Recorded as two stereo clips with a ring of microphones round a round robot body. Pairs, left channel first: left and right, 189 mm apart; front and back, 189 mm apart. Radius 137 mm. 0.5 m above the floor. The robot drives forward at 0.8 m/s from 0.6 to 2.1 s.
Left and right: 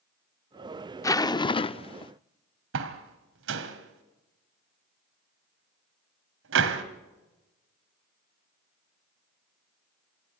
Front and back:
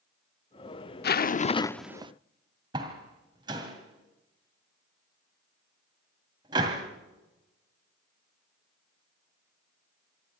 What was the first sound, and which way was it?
A zipper, 20° left.